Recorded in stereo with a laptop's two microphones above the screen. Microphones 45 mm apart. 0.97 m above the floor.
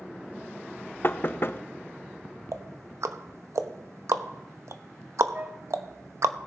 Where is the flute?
40° right (ahead or behind), 0.7 m.